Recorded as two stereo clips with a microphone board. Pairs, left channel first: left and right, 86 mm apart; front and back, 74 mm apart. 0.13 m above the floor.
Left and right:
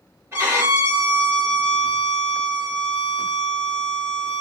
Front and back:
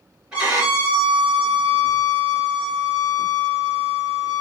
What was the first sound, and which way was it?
A violin, 110° right.